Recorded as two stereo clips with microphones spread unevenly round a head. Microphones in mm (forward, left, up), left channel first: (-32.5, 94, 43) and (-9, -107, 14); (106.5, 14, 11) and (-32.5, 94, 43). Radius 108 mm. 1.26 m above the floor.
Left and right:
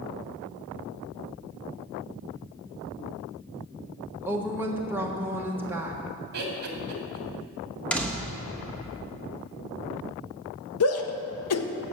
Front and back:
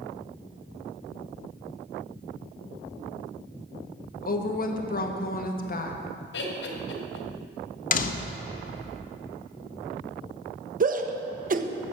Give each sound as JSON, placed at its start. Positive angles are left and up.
{"t": 4.2, "sound": "a woman speaking", "azimuth_deg": -5, "distance_m": 1.4}
{"t": 6.3, "sound": "laughter", "azimuth_deg": -40, "distance_m": 2.5}
{"t": 7.9, "sound": "a door slam", "azimuth_deg": 15, "distance_m": 1.0}
{"t": 10.8, "sound": "a shout", "azimuth_deg": 110, "distance_m": 1.1}